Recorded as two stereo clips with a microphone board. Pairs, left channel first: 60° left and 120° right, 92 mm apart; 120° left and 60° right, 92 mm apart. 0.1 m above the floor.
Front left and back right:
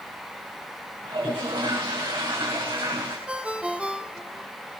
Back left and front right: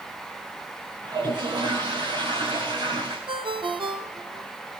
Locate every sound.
1.0 s a toilet flushing: 95° right, 8.5 m
3.3 s a ringtone: 40° right, 1.8 m